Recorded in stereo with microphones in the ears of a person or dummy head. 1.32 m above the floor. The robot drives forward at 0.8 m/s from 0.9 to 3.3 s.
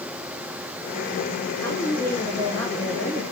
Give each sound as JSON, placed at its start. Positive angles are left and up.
{"t": 1.6, "sound": "a woman speaking", "side_deg": 10, "distance_m": 6.0}